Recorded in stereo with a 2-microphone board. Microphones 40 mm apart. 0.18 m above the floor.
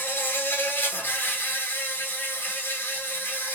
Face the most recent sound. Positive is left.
turn(degrees=60)  # may be behind; listen again after turning